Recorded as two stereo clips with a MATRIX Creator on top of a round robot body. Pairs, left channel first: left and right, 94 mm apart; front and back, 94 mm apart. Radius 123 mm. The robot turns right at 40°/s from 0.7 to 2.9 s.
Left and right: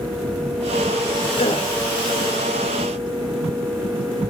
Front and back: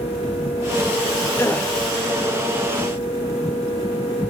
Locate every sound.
1.4 s a gasp: 65° left, 1.4 m; by 1.7 s 80° left, 1.4 m